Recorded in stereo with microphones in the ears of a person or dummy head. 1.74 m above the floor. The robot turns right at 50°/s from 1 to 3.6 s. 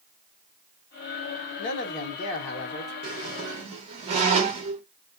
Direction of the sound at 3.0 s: 30° right (ahead or behind).